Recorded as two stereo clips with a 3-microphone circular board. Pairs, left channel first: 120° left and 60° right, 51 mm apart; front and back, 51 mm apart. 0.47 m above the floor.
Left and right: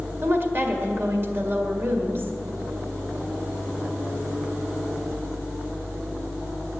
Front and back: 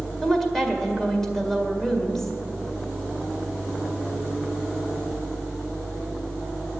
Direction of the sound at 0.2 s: 80° right.